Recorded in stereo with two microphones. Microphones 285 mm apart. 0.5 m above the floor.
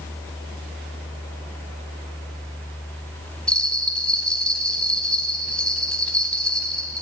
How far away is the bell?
About 3.5 m.